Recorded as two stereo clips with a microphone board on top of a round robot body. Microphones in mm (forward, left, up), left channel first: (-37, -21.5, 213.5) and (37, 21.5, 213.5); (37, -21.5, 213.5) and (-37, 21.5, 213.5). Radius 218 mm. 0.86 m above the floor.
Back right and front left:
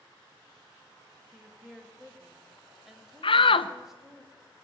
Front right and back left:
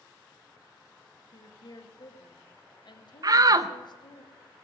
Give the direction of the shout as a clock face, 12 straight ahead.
5 o'clock.